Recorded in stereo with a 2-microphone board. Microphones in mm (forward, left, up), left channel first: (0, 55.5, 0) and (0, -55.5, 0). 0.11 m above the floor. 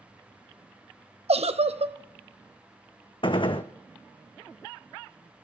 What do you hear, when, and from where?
1.3 s a giggle: 75° right (ahead or behind), 0.7 m
3.2 s a gunshot: 50° left (ahead or behind), 1.0 m